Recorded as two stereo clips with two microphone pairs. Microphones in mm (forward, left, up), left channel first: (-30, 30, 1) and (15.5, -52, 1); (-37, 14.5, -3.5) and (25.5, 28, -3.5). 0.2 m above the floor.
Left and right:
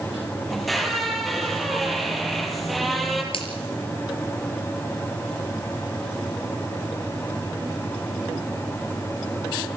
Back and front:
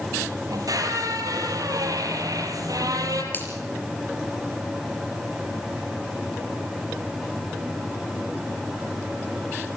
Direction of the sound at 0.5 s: 30° left.